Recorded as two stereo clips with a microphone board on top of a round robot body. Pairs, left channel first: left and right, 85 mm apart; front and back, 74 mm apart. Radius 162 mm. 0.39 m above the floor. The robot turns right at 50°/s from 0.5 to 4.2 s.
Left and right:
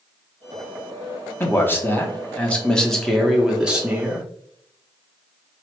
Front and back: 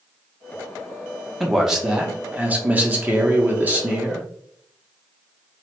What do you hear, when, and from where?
1.4 s a man speaking: 90° left, 1.0 m; by 4.3 s 130° right, 1.0 m